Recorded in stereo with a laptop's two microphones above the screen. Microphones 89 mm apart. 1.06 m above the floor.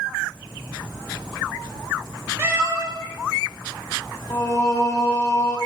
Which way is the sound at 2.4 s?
25° right (ahead or behind).